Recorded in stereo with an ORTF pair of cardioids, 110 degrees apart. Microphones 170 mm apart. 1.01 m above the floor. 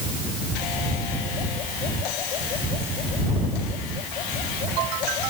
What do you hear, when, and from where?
Only background noise.